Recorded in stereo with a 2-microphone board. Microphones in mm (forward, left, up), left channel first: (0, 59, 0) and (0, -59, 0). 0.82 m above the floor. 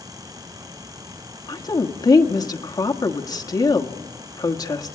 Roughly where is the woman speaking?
Left.